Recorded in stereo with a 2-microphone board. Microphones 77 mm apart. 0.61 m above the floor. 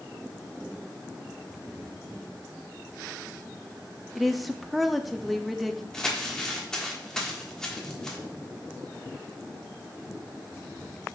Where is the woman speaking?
Centre (ahead or behind), 0.5 m.